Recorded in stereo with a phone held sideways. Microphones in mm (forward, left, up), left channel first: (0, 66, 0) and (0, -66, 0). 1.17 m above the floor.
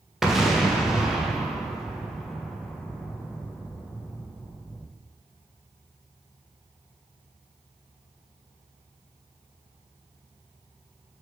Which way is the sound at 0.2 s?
Centre (ahead or behind).